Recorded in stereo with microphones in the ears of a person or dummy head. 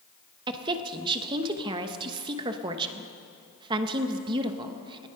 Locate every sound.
0.5 s a woman speaking: 25° right (ahead or behind), 0.9 m